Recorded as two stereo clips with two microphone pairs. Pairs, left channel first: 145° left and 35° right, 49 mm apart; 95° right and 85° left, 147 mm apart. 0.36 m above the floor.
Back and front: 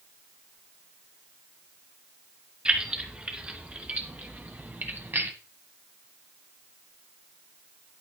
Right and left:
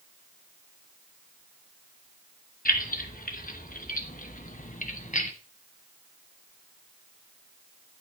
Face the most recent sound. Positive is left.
turn(degrees=-70)